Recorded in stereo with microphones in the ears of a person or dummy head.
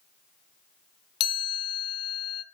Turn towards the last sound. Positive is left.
turn(degrees=30)  # may be behind; listen again after turning